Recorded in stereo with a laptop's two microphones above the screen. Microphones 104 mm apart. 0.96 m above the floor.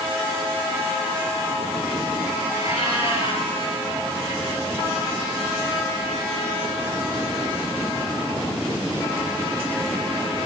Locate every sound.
2.5 s a cat meowing: 60° left (ahead or behind), 4 m